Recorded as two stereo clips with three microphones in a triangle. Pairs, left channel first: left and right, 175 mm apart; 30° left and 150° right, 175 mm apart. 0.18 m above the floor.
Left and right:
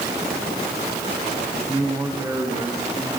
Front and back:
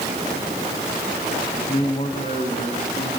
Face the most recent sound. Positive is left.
turn(degrees=-15)